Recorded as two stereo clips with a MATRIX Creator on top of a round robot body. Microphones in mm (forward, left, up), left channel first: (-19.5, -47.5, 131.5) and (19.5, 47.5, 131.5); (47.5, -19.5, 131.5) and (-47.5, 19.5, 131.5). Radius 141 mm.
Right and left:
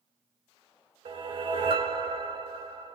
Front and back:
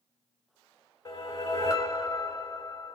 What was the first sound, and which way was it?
A whoosh, 35° left.